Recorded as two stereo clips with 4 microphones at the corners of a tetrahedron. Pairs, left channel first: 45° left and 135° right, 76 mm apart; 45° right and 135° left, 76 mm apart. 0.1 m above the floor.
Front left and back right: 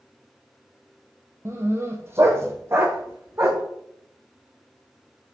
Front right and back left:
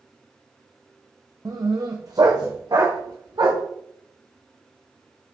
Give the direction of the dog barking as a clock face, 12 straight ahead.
6 o'clock.